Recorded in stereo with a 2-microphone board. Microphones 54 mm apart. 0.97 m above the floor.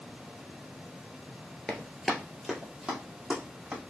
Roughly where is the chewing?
No chewing in this recording.